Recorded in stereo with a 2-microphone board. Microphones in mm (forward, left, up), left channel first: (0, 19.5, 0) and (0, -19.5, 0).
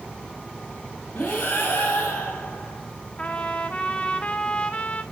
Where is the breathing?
55° left (ahead or behind), 3 m.